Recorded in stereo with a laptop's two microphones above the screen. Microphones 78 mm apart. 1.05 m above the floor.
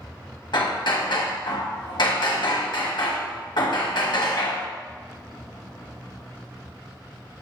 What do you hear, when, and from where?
0.5 s hammering: 70° left (ahead or behind), 0.8 m